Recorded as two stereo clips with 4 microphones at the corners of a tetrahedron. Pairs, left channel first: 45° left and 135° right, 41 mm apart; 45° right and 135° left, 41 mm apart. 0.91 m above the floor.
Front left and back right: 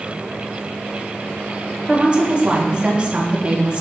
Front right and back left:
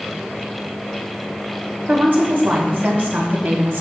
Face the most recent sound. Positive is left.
turn(degrees=160)